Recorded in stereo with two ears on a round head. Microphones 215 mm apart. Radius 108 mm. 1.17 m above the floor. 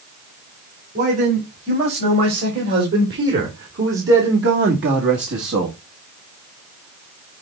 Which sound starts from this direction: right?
A man speaking, at 0.9 s.